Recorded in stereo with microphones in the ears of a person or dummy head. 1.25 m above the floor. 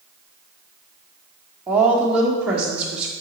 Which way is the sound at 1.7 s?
5° right (ahead or behind).